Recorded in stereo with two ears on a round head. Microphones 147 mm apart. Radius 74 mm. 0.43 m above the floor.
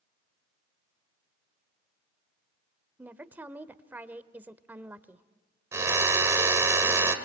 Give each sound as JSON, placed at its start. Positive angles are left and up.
{"t": 3.0, "sound": "a woman speaking", "side_deg": -10, "distance_m": 1.1}
{"t": 5.7, "sound": "a drill", "side_deg": -15, "distance_m": 2.0}